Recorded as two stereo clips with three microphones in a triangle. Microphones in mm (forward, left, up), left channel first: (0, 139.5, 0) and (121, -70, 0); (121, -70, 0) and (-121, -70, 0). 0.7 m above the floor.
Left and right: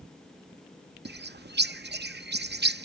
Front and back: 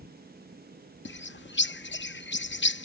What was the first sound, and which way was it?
A bird, 25° right.